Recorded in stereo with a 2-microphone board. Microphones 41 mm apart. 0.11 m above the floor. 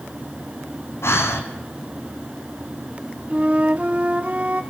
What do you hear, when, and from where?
1.0 s breathing: 80° left, 2 m
3.3 s a flute: 35° right (ahead or behind), 1.0 m